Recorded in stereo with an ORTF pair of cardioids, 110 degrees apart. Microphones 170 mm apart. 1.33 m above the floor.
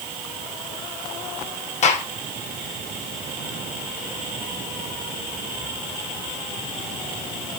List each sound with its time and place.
1.8 s a gunshot: 45° left, 3 m